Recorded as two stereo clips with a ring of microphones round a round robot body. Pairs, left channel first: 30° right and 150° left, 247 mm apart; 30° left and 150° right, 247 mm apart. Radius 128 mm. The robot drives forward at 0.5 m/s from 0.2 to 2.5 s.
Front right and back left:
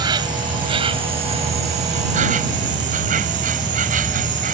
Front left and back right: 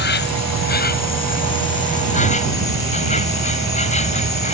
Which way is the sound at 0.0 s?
75° left.